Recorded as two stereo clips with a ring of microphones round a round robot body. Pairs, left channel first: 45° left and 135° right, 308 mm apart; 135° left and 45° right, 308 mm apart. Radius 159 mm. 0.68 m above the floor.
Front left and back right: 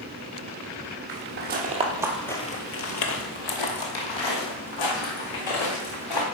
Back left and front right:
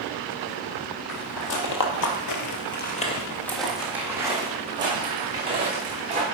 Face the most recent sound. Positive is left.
turn(degrees=25)